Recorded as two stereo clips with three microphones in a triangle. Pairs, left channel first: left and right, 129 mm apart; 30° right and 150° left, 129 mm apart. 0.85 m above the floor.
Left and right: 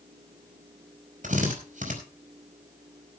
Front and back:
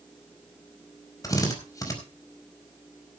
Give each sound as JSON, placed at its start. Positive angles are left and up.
{"t": 1.2, "sound": "a drill", "azimuth_deg": -95, "distance_m": 4.5}